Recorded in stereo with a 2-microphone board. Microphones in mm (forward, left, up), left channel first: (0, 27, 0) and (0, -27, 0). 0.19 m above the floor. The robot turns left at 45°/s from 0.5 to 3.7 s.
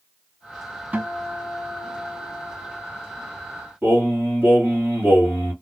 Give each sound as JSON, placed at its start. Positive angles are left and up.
{"t": 0.9, "sound": "a guitar", "azimuth_deg": -125, "distance_m": 1.0}
{"t": 3.8, "sound": "singing", "side_deg": -35, "distance_m": 2.0}